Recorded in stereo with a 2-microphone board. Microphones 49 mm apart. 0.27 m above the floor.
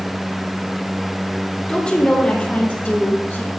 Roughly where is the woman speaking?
Left.